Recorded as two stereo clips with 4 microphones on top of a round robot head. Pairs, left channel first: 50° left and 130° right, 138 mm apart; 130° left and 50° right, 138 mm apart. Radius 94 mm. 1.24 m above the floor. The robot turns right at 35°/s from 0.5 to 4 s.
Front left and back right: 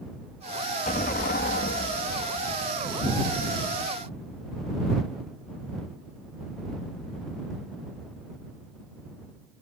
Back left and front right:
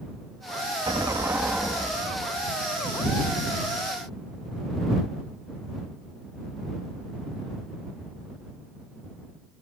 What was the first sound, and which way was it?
An explosion, 10° left.